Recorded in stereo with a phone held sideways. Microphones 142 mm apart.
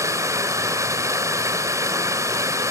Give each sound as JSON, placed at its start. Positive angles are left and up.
{"t": 0.0, "sound": "running water", "side_deg": -20, "distance_m": 1.5}